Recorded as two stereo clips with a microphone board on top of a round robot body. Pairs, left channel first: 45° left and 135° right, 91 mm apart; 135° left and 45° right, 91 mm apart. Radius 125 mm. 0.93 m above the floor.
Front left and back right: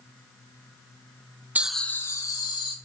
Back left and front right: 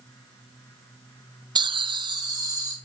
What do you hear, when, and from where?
1.6 s laughter: 65° right, 0.6 m; by 2.8 s straight ahead, 1.4 m